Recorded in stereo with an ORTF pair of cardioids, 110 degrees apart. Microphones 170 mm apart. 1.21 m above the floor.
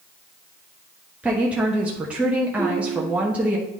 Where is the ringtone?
20° right, 3 m.